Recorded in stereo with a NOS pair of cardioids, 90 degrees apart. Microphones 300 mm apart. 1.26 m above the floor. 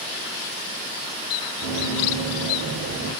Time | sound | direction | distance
1.6 | running footsteps | 50° right | 4.5 m